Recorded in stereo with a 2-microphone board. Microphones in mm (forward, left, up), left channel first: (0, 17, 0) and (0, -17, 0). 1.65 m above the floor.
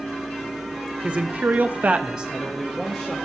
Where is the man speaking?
35° right (ahead or behind), 1.1 m; by 3.1 s centre (ahead or behind), 1.7 m.